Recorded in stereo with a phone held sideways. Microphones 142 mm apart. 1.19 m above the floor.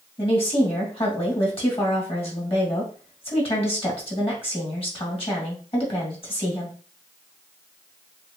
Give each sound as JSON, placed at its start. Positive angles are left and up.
{"t": 0.2, "sound": "a woman speaking", "side_deg": 40, "distance_m": 2.5}